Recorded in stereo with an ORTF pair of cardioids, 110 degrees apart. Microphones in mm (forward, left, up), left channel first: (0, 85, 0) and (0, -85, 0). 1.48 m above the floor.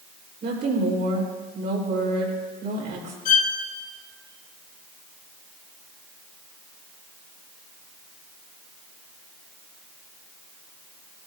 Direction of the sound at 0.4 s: 65° right.